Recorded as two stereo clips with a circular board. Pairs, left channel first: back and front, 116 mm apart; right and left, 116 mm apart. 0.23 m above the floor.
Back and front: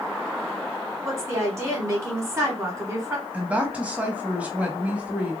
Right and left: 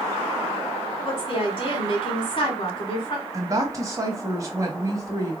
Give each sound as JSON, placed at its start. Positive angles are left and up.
{"t": 1.1, "sound": "a woman speaking", "azimuth_deg": -55, "distance_m": 1.6}
{"t": 3.3, "sound": "a woman speaking", "azimuth_deg": 65, "distance_m": 1.1}